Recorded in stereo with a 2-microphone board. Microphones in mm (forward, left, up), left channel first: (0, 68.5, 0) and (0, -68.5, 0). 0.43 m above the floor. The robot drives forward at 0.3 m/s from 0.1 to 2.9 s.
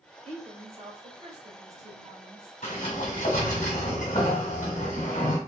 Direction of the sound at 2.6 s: 60° left (ahead or behind).